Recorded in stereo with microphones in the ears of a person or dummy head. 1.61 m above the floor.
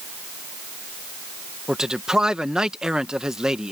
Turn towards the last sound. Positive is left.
turn(degrees=0)  # may be behind; listen again after turning